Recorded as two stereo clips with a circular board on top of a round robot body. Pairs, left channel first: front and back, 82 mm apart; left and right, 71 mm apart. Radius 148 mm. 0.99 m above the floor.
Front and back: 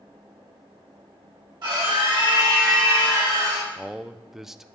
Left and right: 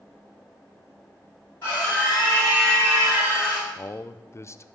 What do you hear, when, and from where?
1.6 s a scream: 150° left, 6.5 m; by 3.7 s 135° left, 5.5 m
3.8 s a man speaking: 95° left, 0.6 m